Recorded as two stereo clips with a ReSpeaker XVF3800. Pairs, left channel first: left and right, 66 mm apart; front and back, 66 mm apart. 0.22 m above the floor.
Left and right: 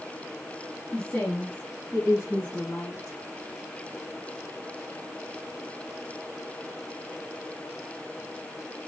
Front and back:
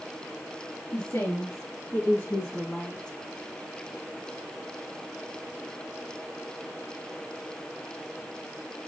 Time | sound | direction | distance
0.9 | a woman speaking | 20° left | 3.5 m